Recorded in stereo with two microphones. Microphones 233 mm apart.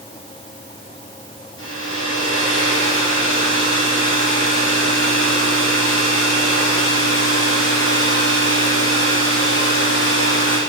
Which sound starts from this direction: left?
A hair dryer, at 1.6 s.